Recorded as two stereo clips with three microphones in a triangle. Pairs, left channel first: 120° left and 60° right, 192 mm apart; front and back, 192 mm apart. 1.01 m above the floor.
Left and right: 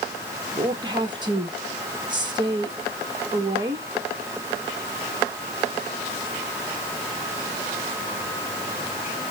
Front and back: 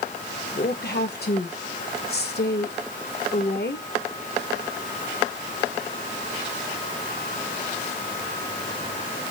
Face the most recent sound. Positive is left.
turn(degrees=5)